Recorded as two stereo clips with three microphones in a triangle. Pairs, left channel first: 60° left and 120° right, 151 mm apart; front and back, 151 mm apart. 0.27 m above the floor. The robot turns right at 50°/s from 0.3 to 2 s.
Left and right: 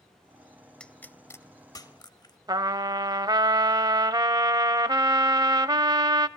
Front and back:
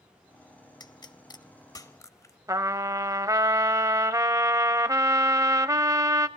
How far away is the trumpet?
About 0.6 m.